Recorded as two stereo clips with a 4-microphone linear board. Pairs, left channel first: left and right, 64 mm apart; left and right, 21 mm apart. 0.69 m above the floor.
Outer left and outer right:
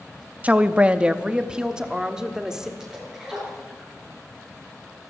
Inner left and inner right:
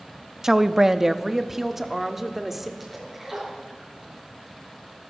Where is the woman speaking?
25° right (ahead or behind), 0.6 m; by 2.7 s 10° right (ahead or behind), 1.6 m.